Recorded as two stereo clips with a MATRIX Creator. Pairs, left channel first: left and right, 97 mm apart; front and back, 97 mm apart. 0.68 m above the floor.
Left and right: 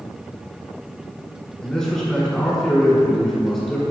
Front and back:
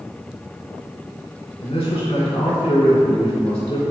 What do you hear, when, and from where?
1.6 s a man speaking: 5° left, 2.5 m